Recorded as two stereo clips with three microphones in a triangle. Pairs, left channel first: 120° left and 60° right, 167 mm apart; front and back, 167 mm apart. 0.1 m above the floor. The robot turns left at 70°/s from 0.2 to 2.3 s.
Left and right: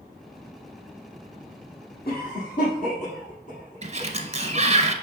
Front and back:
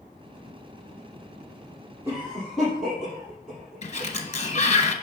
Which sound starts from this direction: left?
A cough, at 2.0 s.